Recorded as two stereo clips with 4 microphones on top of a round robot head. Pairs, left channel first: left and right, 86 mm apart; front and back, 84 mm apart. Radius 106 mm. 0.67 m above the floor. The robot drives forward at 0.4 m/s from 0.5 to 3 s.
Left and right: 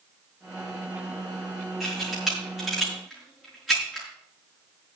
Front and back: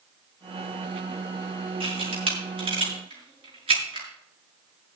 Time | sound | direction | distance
1.8 | a camera shutter | 175° right | 5.5 m